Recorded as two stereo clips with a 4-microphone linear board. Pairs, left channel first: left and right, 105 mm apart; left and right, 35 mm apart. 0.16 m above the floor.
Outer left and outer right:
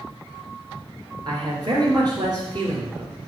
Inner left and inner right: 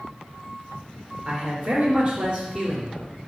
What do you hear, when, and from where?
1.2 s a man speaking: 40° right (ahead or behind), 2.5 m